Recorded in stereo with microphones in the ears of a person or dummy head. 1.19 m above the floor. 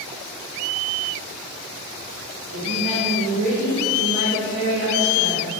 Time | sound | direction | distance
2.5 | a woman speaking | 75° right (ahead or behind) | 4 m